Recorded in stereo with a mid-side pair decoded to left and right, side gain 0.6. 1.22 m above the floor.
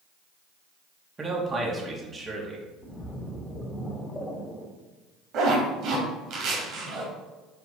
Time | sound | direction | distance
1.2 | a man speaking | 25° right | 2.5 m
2.8 | a splash | 20° left | 2 m
5.3 | a zipper | 60° right | 2.5 m